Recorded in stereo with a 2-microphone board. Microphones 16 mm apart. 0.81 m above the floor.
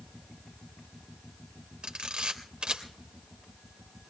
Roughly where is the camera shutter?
Right.